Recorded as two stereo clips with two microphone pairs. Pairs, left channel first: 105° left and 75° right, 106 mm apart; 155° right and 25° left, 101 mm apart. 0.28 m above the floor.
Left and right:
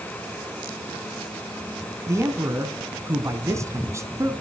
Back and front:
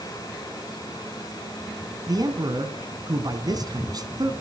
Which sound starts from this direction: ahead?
A man speaking, at 2.1 s.